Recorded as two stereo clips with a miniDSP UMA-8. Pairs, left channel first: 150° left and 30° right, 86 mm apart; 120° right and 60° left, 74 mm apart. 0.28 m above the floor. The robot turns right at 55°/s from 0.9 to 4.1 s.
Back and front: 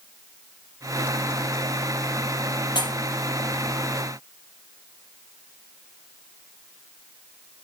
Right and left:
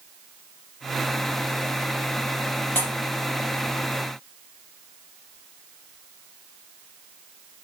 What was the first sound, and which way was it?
A pop, straight behind.